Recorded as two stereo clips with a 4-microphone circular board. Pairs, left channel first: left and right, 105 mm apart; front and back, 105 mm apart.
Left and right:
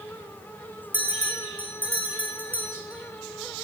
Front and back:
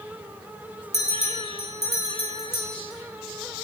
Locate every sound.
0.9 s a bell: 15° right, 6 m